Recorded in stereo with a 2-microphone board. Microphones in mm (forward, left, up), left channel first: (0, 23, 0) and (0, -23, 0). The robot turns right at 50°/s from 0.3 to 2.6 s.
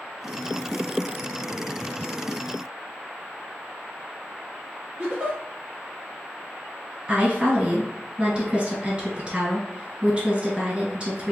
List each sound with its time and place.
5.0 s a giggle: 20° right (ahead or behind), 1.8 m
7.1 s a woman speaking: 25° right (ahead or behind), 1.4 m